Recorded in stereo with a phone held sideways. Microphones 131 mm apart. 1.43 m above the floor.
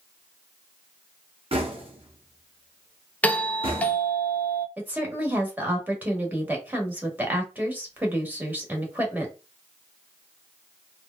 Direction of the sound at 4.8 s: 15° right (ahead or behind).